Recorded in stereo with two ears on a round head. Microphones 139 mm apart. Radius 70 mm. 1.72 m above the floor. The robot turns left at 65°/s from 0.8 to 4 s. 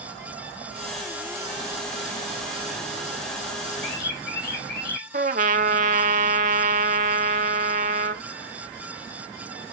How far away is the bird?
About 4.5 m.